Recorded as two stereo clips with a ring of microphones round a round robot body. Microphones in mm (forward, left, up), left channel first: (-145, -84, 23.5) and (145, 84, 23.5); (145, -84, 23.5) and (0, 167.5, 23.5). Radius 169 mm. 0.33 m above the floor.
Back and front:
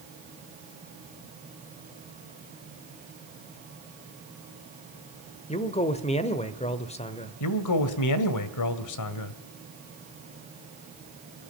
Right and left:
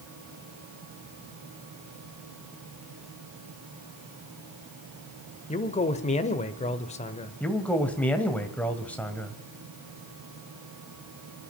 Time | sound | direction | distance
5.5 | a man speaking | 100° right | 1.1 m
7.4 | a man speaking | 145° right | 1.6 m